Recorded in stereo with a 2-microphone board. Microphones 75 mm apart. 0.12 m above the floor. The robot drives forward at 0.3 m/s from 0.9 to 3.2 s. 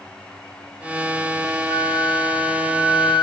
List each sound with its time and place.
1.7 s a flute: 65° left (ahead or behind), 0.8 m; by 3.2 s 75° left (ahead or behind), 0.8 m